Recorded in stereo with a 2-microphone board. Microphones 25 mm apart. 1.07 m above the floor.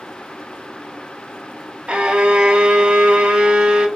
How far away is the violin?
About 0.7 m.